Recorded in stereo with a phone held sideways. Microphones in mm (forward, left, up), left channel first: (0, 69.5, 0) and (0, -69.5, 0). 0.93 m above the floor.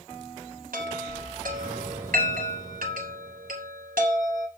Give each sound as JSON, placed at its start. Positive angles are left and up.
{"t": 0.7, "sound": "a chime", "side_deg": -80, "distance_m": 3.5}